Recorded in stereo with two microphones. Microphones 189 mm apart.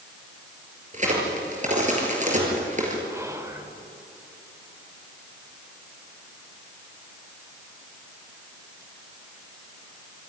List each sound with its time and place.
0.9 s a crack: 40° right (ahead or behind), 5 m
3.1 s whispering: 15° right (ahead or behind), 3.5 m